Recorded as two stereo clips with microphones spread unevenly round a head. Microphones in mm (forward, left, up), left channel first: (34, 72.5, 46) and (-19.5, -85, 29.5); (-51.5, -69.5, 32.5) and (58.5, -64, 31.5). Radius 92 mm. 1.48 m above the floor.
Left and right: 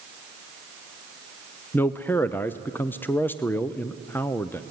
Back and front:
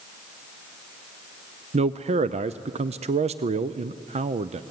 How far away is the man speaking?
About 0.5 m.